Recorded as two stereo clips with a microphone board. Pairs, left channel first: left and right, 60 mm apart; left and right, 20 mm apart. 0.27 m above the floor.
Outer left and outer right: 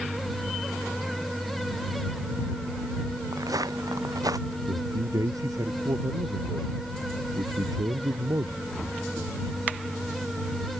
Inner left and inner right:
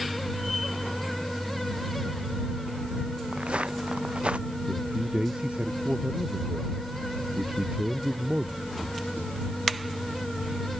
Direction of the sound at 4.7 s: 75° right (ahead or behind).